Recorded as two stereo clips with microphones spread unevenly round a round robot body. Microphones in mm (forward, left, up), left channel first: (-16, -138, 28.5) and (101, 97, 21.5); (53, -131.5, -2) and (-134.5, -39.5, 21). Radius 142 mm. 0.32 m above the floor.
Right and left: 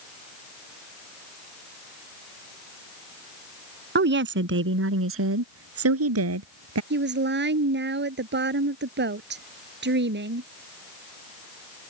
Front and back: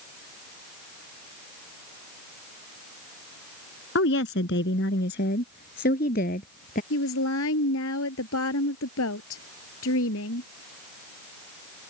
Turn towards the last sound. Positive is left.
turn(degrees=15)